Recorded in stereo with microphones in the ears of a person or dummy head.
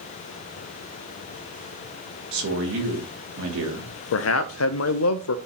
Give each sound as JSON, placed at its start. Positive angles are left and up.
{"t": 2.3, "sound": "a man speaking", "side_deg": -80, "distance_m": 1.9}
{"t": 4.1, "sound": "a man speaking", "side_deg": 85, "distance_m": 0.5}